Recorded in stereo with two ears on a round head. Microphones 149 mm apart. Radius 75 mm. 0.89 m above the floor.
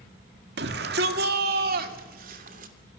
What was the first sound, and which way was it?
A shout, 70° right (ahead or behind).